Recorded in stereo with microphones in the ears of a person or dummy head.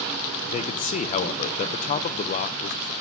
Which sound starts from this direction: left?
A man speaking, at 0.5 s.